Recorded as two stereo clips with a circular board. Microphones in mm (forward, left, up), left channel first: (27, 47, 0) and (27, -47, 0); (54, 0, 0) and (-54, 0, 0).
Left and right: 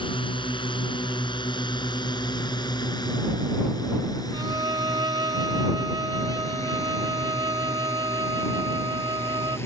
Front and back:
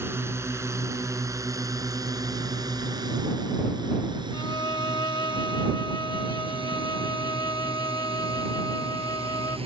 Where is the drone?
115° left; by 9.7 s 150° left.